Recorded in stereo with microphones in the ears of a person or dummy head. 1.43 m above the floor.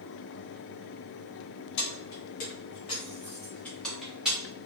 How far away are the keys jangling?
About 1.2 m.